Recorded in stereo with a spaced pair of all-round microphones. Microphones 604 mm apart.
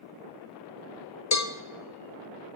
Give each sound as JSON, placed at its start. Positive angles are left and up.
{"t": 1.3, "sound": "a cowbell", "side_deg": 30, "distance_m": 0.6}